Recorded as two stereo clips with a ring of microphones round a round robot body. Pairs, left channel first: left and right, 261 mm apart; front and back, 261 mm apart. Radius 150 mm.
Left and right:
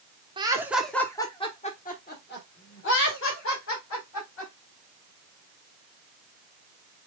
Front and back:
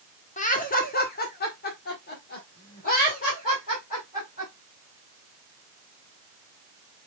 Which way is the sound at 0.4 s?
35° right.